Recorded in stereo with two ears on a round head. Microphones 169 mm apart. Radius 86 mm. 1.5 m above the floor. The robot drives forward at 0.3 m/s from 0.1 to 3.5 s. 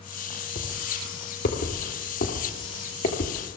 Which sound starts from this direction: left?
Footsteps, at 0.6 s.